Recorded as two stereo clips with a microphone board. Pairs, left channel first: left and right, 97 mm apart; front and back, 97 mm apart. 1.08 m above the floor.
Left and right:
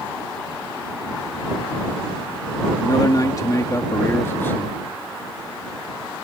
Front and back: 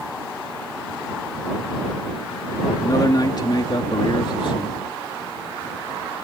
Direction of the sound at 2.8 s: 45° left.